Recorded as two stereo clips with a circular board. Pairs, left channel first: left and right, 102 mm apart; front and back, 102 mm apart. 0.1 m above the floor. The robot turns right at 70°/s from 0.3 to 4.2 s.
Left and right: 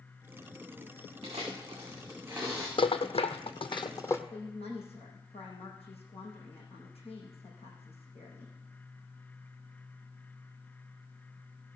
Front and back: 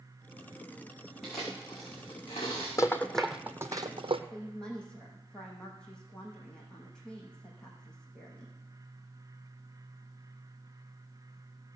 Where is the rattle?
60° left, 0.9 m; by 4.2 s 155° left, 0.9 m.